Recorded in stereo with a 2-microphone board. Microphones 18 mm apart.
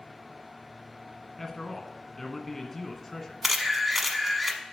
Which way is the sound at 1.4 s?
10° left (ahead or behind).